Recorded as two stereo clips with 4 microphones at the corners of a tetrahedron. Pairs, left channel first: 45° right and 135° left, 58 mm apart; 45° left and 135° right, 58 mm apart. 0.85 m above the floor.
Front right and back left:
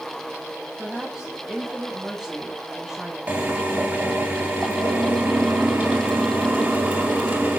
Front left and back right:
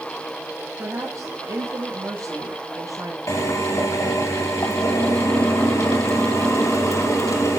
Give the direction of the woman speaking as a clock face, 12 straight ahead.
5 o'clock.